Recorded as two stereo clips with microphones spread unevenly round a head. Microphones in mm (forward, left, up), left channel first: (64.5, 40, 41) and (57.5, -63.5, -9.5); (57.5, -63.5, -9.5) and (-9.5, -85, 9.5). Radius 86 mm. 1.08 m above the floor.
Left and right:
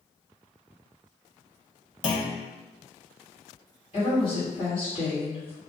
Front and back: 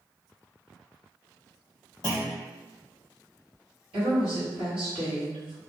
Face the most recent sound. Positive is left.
turn(degrees=155)